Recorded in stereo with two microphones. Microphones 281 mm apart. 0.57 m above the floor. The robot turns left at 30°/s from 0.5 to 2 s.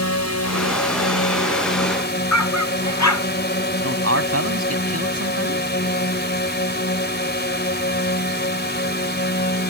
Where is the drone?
85° left; by 9.7 s 40° left.